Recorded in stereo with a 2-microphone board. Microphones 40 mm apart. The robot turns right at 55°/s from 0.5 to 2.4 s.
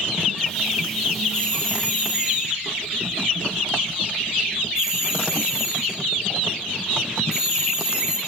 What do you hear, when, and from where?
1.3 s a doorbell: 75° right (ahead or behind), 7.5 m; by 8.2 s 15° right (ahead or behind), 7.5 m